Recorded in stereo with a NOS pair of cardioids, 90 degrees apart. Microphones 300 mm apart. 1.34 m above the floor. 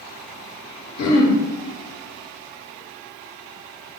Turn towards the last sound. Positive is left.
turn(degrees=65)